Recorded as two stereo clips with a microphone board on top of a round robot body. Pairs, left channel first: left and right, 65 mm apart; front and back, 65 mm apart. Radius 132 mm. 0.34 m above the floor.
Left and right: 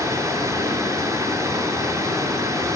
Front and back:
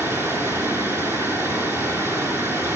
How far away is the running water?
About 5 m.